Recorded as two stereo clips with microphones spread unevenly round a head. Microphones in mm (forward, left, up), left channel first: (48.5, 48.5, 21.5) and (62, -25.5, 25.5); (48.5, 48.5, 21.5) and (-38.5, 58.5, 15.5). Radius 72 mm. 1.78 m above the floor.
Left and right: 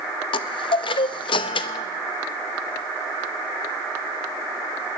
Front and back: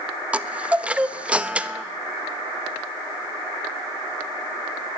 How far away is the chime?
About 0.6 m.